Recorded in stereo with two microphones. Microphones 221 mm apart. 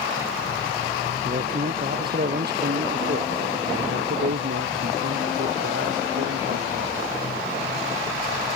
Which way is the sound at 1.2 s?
40° right (ahead or behind).